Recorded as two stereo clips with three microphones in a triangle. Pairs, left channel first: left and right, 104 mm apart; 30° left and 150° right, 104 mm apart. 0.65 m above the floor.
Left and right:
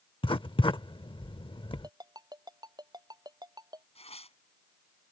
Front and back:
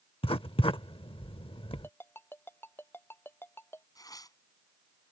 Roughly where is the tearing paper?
Left.